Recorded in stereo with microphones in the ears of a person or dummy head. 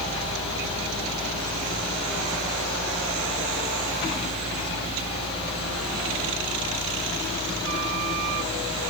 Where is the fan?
35° left (ahead or behind), 5 m.